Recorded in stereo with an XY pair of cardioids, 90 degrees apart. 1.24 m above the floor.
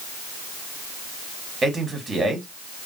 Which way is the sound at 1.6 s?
40° right.